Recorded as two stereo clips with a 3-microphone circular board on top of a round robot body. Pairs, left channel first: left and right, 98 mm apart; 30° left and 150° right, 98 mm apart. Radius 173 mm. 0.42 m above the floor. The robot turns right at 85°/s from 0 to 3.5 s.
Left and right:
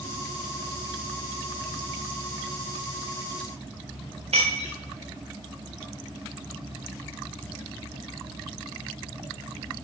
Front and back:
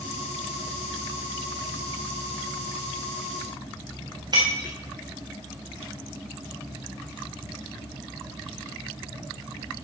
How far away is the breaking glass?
About 3 m.